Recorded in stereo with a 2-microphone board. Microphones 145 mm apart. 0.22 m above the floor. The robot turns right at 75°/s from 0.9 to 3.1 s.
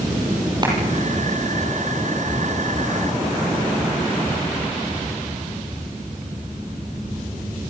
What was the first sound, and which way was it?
A clap, 30° right (ahead or behind).